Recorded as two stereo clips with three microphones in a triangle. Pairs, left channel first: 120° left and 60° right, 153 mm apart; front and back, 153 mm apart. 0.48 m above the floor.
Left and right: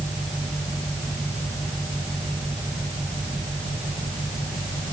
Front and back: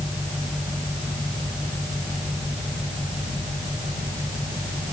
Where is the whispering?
No whispering in this recording.